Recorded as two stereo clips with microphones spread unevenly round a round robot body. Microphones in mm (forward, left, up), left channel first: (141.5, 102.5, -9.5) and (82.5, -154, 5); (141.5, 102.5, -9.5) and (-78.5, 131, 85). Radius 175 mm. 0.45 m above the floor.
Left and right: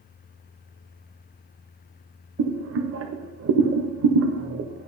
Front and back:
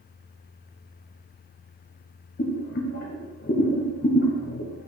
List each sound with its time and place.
2.4 s boiling: 60° right, 0.6 m